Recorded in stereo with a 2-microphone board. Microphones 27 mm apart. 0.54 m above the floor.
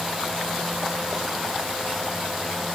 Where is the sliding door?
No sliding door in this recording.